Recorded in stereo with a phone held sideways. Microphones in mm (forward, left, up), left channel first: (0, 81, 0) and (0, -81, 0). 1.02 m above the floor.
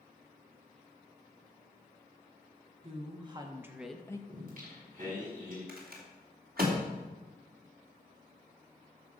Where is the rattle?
70° right (ahead or behind), 3 m.